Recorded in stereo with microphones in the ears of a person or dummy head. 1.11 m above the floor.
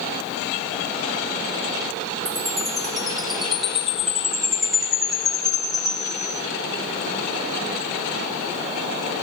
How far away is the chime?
About 1.8 m.